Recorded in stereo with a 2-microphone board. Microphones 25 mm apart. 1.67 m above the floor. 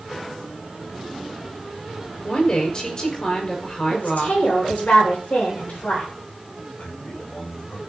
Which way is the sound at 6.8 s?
60° left (ahead or behind).